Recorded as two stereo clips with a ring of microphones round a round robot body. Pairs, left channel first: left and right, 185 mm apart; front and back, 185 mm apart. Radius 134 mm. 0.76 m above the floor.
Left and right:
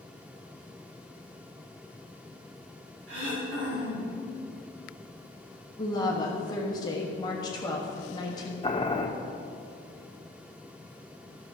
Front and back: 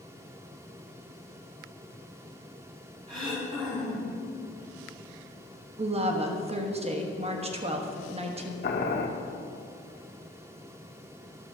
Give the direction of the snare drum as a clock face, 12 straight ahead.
I don't hear a snare drum.